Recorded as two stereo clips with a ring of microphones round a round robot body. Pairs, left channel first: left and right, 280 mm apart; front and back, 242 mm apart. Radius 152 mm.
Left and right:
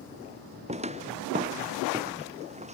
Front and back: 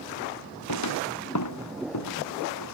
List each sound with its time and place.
0.7 s footsteps: 20° right; by 2.7 s 25° right